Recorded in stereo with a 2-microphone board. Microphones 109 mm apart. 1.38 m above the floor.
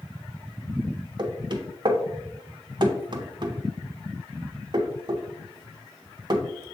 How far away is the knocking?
About 0.6 m.